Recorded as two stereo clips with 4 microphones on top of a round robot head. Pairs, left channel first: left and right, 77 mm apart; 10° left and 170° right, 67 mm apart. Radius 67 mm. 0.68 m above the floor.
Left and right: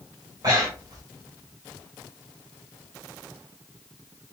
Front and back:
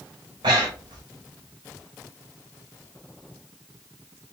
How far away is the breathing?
About 0.9 m.